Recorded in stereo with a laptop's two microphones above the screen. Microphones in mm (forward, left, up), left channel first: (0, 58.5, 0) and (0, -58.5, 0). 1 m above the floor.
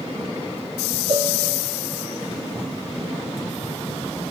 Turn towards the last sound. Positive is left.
turn(degrees=-50)  # may be behind; listen again after turning